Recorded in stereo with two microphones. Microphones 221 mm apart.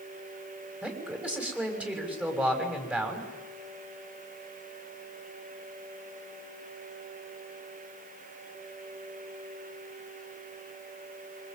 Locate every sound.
0.8 s a man speaking: 5° right (ahead or behind), 6 m